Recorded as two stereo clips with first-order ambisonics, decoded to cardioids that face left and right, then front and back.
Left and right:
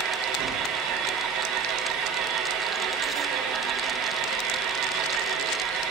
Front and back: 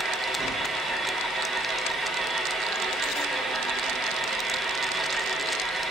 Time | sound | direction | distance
0.0 | an engine running | 110° right | 5 m